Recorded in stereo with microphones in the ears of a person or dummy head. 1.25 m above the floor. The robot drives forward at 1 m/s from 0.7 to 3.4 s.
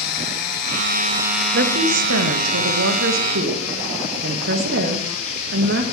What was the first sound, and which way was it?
Running water, 60° left (ahead or behind).